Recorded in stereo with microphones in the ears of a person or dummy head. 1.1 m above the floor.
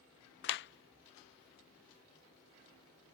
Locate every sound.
0.4 s a clap: 55° left (ahead or behind)